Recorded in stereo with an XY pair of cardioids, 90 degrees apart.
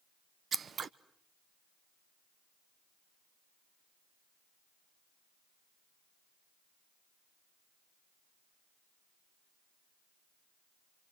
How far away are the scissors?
About 1.0 m.